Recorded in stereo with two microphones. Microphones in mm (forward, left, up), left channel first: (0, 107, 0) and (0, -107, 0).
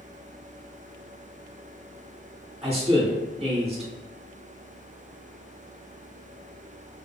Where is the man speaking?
25° right (ahead or behind), 1.0 m.